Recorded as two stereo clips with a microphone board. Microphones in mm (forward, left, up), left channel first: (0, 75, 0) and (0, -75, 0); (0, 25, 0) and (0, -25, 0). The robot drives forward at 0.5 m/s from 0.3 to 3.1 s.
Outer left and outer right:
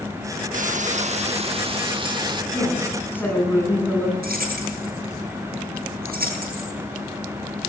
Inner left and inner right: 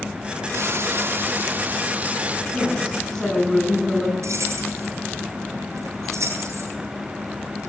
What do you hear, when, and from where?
0.5 s frying: 60° right (ahead or behind), 0.9 m; by 2.4 s 30° right (ahead or behind), 1.6 m
2.5 s a woman speaking: 15° left (ahead or behind), 8.5 m
4.2 s keys jangling: 75° right (ahead or behind), 10 m